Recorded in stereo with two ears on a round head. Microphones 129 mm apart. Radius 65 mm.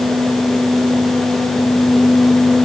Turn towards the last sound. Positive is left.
No sound to turn to.